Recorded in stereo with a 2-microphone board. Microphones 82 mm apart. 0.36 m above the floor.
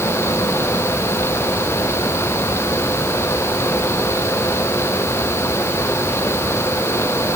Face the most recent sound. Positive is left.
No sound to turn to.